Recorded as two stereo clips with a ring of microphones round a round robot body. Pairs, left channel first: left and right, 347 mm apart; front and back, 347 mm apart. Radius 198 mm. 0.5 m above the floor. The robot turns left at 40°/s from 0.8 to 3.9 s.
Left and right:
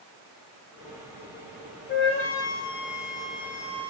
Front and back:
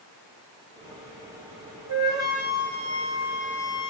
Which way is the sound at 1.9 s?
155° left.